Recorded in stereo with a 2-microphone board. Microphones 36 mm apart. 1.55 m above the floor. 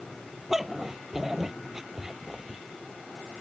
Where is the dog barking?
10° right (ahead or behind); by 2.6 s 15° right (ahead or behind).